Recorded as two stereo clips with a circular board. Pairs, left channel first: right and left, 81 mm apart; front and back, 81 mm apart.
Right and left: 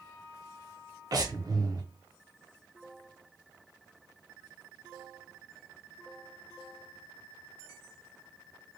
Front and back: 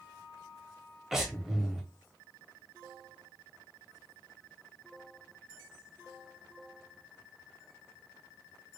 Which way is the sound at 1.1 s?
95° left.